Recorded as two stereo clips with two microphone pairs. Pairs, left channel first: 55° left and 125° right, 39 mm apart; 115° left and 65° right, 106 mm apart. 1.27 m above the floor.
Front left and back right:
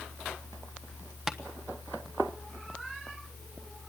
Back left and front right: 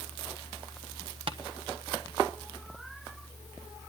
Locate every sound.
1.3 s tapping: 40° right, 1.1 m